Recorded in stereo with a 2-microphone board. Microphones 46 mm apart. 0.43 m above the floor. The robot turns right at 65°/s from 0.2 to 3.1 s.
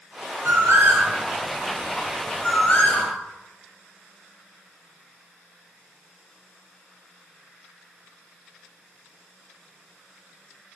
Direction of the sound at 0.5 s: 70° right (ahead or behind).